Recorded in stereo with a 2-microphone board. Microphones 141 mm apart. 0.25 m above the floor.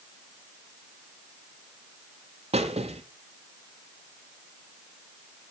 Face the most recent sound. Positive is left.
turn(degrees=-45)  # may be behind; listen again after turning